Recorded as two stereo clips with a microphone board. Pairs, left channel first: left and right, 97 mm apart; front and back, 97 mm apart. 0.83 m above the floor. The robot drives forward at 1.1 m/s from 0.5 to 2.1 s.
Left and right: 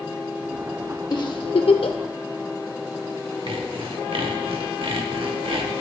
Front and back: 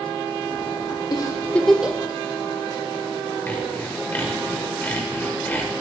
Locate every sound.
1.1 s a giggle: 45° left, 1.0 m; by 2.0 s 110° left, 0.8 m
3.5 s sawing: 70° right, 1.2 m